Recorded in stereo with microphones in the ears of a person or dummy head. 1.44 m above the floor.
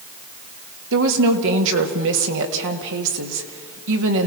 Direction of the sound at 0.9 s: 70° right (ahead or behind).